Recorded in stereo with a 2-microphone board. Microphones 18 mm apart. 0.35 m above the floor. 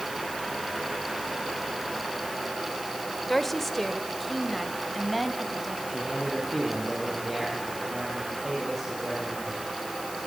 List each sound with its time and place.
3.3 s a woman speaking: 15° left (ahead or behind), 1.5 m; by 5.8 s 5° left (ahead or behind), 3 m
5.9 s a man speaking: 5° left (ahead or behind), 9.5 m